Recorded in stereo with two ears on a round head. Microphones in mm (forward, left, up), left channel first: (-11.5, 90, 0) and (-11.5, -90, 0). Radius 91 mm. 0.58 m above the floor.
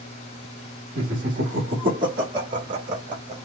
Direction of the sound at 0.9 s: 40° right (ahead or behind).